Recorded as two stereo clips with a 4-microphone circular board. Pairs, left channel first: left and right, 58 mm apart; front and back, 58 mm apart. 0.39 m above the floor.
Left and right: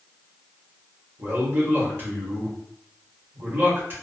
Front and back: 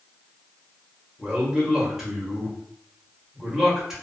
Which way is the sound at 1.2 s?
100° right.